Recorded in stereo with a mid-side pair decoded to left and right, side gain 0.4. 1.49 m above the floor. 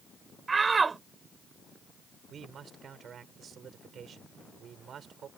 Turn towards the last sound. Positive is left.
turn(degrees=-60)